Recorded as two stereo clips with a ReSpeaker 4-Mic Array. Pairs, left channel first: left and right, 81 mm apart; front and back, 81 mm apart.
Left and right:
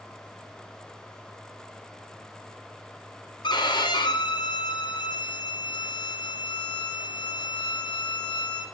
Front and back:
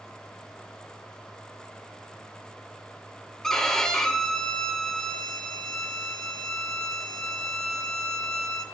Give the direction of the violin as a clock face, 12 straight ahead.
9 o'clock.